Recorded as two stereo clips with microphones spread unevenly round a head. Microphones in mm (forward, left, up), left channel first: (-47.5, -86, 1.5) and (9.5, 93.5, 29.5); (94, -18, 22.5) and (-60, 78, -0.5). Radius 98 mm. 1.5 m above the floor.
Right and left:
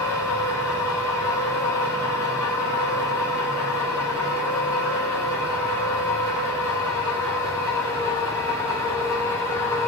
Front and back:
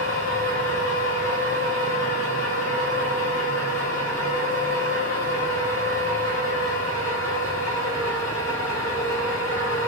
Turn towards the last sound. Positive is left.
turn(degrees=-35)